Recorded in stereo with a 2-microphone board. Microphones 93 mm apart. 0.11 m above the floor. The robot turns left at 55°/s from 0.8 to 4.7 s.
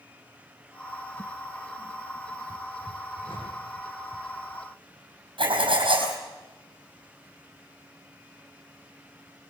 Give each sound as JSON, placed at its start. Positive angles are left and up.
{"t": 3.2, "sound": "a whoosh", "side_deg": 65, "distance_m": 7.0}
{"t": 5.4, "sound": "writing", "side_deg": -70, "distance_m": 4.0}